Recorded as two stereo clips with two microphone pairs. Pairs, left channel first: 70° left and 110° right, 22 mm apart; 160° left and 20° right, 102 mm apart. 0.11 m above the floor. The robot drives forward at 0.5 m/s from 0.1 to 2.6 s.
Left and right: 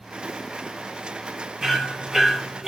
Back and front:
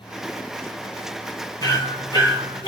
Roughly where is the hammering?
Behind.